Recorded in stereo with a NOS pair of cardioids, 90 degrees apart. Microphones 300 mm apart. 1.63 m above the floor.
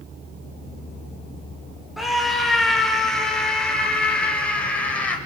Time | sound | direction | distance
2.0 | a scream | straight ahead | 5.5 m